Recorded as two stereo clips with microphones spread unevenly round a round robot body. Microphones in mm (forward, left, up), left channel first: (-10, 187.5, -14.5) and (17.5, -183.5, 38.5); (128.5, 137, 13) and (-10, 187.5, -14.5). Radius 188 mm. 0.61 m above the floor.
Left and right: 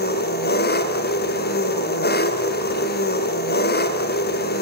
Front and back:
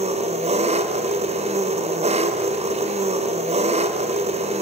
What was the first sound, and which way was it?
An engine running, 150° left.